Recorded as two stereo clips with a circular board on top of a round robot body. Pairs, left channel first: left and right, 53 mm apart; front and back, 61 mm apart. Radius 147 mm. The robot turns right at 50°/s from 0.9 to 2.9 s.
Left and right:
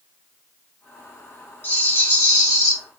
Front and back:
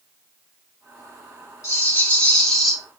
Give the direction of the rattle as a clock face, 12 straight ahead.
11 o'clock.